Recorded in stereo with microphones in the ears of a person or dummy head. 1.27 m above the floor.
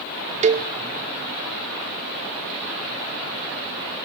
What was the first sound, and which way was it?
A cowbell, 30° right (ahead or behind).